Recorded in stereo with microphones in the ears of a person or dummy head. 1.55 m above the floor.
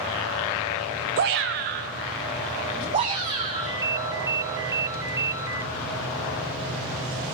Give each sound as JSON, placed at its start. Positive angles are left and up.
{"t": 1.2, "sound": "a shout", "side_deg": -50, "distance_m": 0.5}
{"t": 3.5, "sound": "a ringtone", "side_deg": -15, "distance_m": 1.1}